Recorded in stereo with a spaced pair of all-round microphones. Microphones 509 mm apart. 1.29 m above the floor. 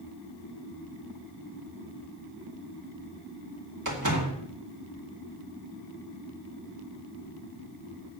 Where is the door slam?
35° right (ahead or behind), 2.5 m.